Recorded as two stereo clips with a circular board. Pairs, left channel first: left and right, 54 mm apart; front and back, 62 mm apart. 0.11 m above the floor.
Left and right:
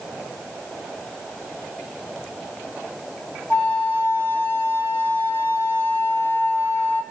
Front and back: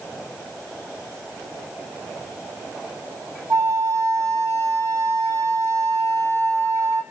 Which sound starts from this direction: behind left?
A flute, at 3.5 s.